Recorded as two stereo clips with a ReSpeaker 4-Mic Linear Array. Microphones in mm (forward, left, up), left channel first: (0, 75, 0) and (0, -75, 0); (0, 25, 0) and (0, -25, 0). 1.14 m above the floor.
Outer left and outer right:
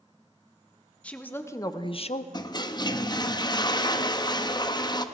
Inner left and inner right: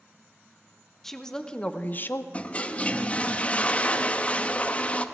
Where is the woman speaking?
10° left (ahead or behind), 1.1 m; by 2.2 s 45° left (ahead or behind), 0.6 m.